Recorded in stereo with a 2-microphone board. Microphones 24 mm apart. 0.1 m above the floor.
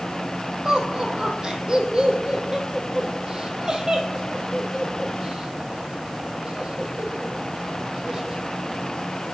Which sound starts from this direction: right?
Laughter, at 0.7 s.